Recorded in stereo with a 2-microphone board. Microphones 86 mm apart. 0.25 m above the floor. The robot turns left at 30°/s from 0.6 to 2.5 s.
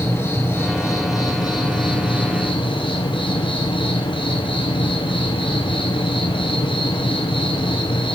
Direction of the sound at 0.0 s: 150° left.